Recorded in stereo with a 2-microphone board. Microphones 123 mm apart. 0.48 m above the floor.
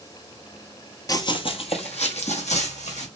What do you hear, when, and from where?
1.1 s running footsteps: 30° left (ahead or behind), 0.5 m; by 3.1 s 75° left (ahead or behind), 1.6 m